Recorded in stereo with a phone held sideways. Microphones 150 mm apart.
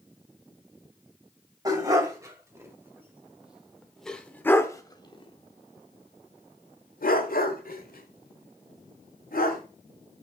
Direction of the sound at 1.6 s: 25° right (ahead or behind).